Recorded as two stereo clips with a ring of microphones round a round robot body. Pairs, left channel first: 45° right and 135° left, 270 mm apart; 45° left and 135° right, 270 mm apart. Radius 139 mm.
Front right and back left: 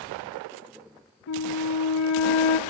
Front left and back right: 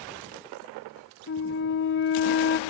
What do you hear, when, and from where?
1.3 s a flute: 5° right, 0.8 m